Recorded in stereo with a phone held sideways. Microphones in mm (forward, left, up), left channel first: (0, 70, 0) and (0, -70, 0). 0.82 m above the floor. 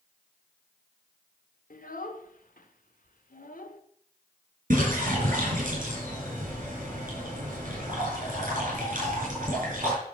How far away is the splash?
About 5.5 m.